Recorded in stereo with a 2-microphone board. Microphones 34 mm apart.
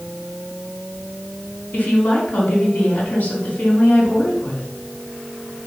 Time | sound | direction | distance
1.7 | a woman speaking | 70° left (ahead or behind) | 3.5 m